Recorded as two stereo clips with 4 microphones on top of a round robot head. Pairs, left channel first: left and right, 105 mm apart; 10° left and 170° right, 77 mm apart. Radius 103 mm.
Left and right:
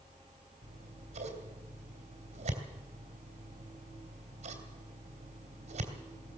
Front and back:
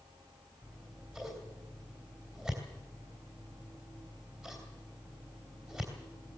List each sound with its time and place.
0.6 s scissors: 90° right, 3 m